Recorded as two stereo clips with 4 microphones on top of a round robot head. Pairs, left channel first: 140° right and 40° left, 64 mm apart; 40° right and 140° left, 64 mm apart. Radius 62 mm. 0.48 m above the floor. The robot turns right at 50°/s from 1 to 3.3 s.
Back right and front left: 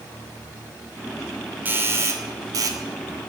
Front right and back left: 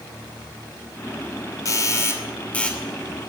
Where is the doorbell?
20° right, 2.5 m; by 2.8 s 40° left, 2.5 m.